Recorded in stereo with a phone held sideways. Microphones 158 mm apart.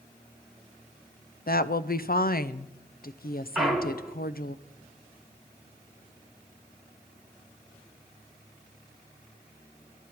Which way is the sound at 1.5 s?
70° left (ahead or behind).